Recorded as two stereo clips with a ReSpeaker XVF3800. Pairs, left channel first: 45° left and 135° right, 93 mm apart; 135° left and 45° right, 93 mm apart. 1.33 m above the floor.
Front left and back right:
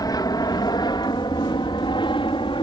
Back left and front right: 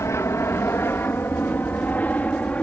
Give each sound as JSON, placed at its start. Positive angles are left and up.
{"t": 0.0, "sound": "an aircraft", "azimuth_deg": 80}